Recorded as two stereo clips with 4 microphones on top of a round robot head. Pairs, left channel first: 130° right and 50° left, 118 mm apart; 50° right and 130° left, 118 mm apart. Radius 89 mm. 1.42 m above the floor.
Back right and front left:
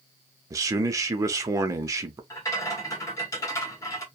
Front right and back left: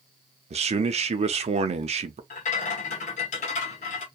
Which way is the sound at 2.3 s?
65° right.